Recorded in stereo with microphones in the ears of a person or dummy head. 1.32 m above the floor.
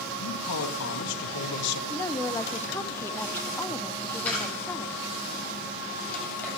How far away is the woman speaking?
About 0.5 m.